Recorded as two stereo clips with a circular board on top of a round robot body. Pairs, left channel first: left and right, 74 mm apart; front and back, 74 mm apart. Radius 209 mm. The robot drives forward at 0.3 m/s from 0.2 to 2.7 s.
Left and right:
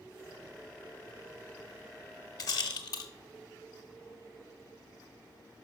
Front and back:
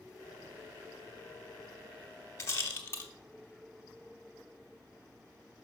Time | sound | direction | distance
2.4 | a rattle | 50° left | 0.6 m